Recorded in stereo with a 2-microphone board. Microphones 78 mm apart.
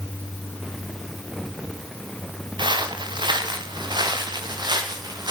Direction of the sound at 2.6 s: 85° right.